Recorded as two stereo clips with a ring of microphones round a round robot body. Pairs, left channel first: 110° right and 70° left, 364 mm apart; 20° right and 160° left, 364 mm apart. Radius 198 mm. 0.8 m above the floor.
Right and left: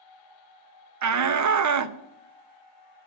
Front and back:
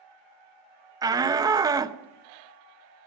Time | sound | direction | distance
1.0 | a shout | 80° left | 0.8 m